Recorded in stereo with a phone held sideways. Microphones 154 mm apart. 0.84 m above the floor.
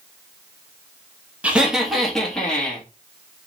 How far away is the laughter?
About 1.0 m.